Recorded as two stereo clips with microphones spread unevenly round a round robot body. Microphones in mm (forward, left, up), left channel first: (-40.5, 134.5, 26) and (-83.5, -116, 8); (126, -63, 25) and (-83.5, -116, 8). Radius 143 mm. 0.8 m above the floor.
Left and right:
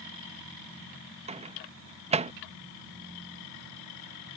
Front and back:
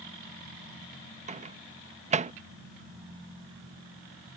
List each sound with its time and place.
1.3 s a microwave: 145° right